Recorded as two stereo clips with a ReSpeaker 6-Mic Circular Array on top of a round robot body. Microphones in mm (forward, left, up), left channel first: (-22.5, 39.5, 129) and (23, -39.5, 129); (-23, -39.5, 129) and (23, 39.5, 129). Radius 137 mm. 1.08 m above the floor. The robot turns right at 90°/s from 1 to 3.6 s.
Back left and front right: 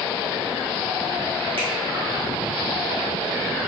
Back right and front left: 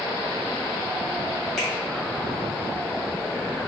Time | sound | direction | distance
1.6 | a finger snap | 30° right | 1.7 m